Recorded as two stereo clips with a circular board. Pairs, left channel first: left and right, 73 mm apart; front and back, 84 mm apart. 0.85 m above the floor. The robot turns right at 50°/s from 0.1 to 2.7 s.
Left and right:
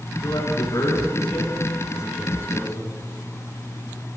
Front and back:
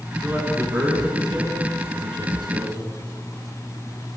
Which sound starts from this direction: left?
A man speaking, at 0.2 s.